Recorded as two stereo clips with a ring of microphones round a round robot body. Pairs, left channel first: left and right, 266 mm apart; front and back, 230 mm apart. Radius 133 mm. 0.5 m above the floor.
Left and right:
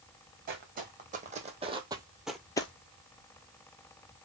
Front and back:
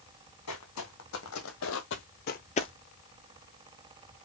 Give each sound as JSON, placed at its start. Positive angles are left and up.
{"t": 0.5, "sound": "footsteps", "azimuth_deg": -35, "distance_m": 1.5}